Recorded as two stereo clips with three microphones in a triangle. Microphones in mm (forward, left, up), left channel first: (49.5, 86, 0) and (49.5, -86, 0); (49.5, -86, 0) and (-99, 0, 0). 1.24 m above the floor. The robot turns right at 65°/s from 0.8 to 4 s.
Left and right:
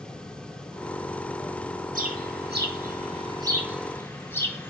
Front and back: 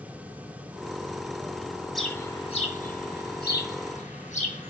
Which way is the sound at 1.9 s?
120° right.